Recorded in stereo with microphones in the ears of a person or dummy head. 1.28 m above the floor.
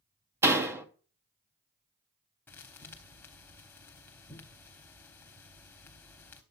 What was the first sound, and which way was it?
A door slam, 15° right (ahead or behind).